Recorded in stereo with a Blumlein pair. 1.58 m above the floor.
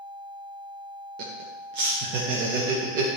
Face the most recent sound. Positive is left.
turn(degrees=-40)